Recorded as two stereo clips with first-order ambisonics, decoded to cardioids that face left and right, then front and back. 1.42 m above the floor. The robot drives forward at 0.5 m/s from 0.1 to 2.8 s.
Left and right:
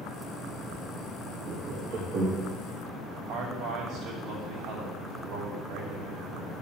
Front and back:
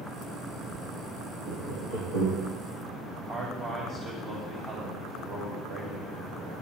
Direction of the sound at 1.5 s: 155° right.